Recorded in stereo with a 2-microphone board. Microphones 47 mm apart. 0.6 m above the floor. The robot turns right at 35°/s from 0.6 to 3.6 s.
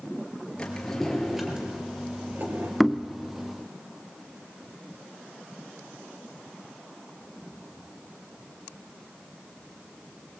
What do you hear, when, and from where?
0.6 s a drawer: 160° left, 3 m; by 2.7 s 125° right, 3 m
2.8 s knocking: centre (ahead or behind), 0.6 m; by 3.1 s 10° left (ahead or behind), 0.6 m